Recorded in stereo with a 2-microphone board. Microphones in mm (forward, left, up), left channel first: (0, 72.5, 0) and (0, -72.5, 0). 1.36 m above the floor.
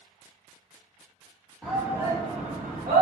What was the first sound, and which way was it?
A shout, centre (ahead or behind).